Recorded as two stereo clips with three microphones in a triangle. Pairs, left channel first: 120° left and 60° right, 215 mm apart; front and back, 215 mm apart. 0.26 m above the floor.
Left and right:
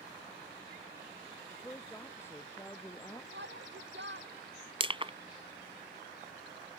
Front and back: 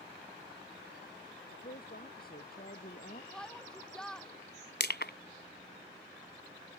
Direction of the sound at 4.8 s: 5° right.